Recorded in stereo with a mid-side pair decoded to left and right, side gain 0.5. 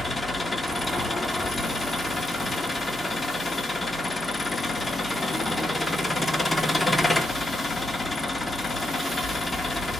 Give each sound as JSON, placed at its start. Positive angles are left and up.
{"t": 0.0, "sound": "an engine running", "azimuth_deg": 15, "distance_m": 1.2}